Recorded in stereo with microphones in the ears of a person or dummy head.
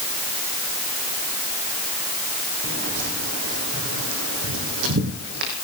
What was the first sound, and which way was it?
Footsteps, 60° right (ahead or behind).